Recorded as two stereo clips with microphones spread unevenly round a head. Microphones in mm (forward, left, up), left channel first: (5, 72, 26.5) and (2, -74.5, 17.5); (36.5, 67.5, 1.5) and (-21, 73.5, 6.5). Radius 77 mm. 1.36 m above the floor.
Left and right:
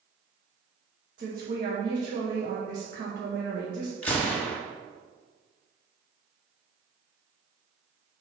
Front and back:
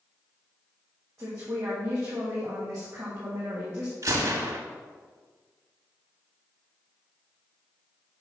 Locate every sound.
1.2 s a woman speaking: 115° right, 1.4 m
4.0 s a gunshot: 165° left, 1.5 m